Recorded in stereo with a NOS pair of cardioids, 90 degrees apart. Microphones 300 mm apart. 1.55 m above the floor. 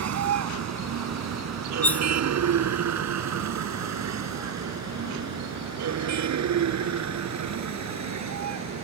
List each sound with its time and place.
0.0 s a vehicle: 60° right; by 8.8 s 65° right
1.8 s cutlery clinking: 5° left